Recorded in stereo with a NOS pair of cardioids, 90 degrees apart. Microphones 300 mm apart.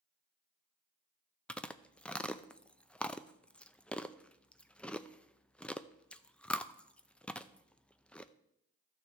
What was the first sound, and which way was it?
Chewing, 5° left.